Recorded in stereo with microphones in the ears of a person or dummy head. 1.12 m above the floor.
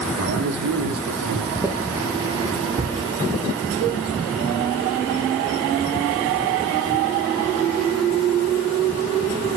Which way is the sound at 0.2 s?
70° right (ahead or behind).